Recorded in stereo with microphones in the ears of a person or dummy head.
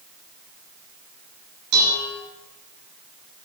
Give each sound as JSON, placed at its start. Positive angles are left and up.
{"t": 1.7, "sound": "dishes clattering", "side_deg": -55, "distance_m": 9.5}